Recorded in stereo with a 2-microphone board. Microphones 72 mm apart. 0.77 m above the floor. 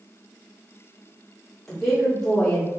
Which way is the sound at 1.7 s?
5° left (ahead or behind).